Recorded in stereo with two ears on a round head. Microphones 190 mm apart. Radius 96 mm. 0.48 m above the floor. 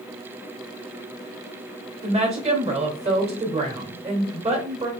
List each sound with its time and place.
2.0 s a woman speaking: 30° right (ahead or behind), 1.9 m